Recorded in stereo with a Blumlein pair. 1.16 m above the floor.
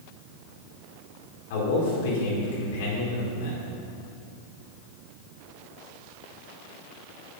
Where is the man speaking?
50° left, 4.5 m.